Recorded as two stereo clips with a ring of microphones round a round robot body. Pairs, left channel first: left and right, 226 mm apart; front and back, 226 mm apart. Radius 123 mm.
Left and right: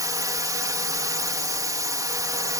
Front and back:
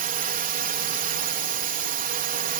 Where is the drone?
155° right.